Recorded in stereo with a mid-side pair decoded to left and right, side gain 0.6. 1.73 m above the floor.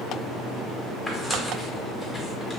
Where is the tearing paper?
15° left, 1.2 m.